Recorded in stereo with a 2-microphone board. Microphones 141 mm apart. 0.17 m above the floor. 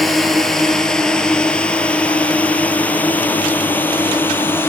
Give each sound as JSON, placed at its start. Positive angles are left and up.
{"t": 0.0, "sound": "a drone", "side_deg": 0}